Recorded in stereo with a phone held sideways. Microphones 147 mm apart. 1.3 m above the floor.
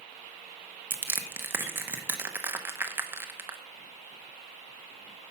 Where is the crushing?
15° right (ahead or behind), 0.9 m.